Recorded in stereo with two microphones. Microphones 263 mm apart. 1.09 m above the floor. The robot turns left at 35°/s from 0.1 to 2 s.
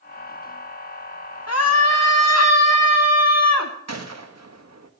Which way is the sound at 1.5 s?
70° left (ahead or behind).